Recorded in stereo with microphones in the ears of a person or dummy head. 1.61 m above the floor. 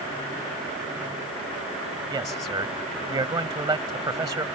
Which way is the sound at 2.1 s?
20° right (ahead or behind).